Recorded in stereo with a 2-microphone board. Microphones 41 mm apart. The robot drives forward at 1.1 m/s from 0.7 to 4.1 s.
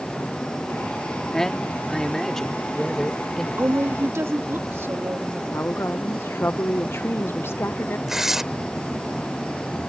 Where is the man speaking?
10° left (ahead or behind); by 3.5 s 5° left (ahead or behind).